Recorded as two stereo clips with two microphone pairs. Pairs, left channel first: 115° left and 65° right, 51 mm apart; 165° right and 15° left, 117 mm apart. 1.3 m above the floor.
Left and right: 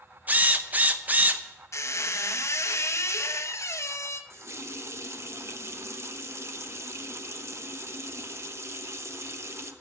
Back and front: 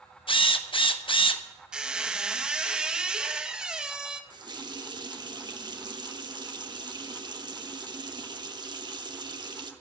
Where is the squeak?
100° left, 0.9 m.